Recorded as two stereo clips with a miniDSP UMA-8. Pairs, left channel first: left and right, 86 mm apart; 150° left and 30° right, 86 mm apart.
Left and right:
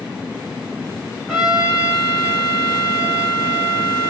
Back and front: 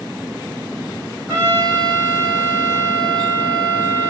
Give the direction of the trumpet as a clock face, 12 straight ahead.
12 o'clock.